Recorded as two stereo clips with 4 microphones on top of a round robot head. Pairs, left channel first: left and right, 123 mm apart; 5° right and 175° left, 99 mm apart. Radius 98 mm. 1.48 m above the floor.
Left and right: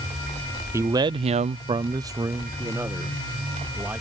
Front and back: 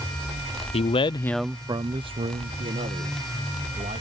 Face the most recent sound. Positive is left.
turn(degrees=-165)